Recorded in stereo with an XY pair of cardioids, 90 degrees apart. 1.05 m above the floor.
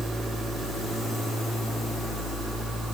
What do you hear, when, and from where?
Only background noise.